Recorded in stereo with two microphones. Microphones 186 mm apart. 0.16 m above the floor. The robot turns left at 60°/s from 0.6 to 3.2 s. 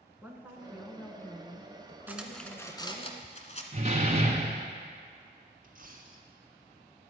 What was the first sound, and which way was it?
A woman speaking, 165° right.